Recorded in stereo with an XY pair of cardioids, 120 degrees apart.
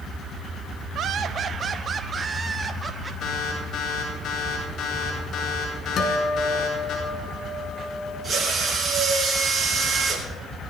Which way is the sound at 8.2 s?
30° right.